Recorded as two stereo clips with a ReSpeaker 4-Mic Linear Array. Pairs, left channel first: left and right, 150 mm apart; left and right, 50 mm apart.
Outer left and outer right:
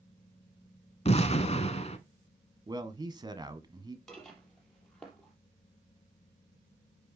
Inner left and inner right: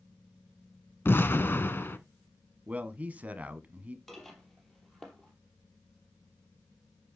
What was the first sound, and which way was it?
An explosion, 45° left (ahead or behind).